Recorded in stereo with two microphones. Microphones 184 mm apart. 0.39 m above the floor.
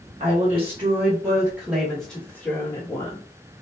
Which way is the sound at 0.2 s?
40° right (ahead or behind).